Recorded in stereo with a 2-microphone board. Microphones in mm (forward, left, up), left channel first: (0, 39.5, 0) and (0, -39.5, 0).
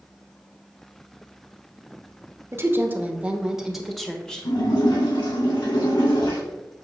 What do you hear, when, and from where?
2.5 s a woman speaking: 30° right (ahead or behind), 1.2 m; by 4.5 s 10° left (ahead or behind), 1.5 m
4.5 s a splash: 70° left (ahead or behind), 3 m